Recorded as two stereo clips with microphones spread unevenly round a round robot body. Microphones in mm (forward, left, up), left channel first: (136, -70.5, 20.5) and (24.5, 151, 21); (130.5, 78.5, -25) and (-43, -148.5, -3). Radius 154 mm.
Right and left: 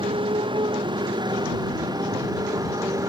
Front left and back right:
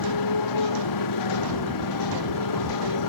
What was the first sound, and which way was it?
A motorcycle, 45° left.